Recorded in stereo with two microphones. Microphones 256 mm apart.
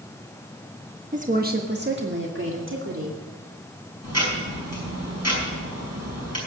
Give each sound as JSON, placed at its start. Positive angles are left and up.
{"t": 1.1, "sound": "a woman speaking", "side_deg": -30, "distance_m": 1.1}
{"t": 4.0, "sound": "ticking", "side_deg": -85, "distance_m": 5.5}